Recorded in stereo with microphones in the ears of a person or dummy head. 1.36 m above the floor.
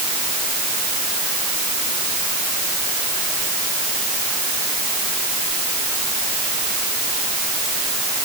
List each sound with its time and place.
Only background noise.